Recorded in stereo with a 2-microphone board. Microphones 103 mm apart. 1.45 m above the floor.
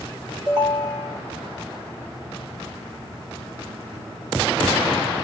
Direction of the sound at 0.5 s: 45° right (ahead or behind).